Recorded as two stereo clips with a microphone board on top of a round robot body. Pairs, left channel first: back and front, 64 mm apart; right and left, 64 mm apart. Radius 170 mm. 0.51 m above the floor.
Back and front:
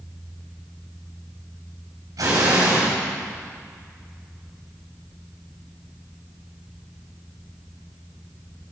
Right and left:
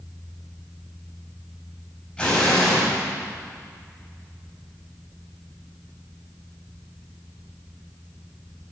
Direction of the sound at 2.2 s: 10° right.